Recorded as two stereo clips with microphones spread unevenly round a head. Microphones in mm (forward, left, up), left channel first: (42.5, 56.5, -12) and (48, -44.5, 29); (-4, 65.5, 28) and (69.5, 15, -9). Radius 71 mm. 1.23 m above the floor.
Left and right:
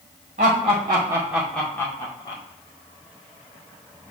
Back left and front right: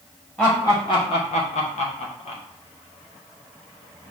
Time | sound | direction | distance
0.4 | laughter | 130° right | 1.2 m